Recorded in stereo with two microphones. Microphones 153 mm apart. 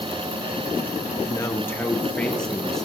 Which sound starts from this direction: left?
A man speaking, at 1.1 s.